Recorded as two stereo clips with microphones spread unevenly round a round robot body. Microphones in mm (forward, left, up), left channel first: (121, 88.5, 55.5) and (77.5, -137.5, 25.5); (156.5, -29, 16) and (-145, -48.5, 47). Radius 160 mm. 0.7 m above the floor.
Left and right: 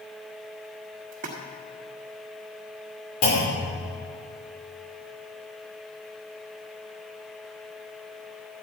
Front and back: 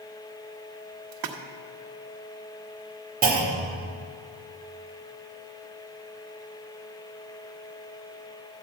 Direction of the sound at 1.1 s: 155° right.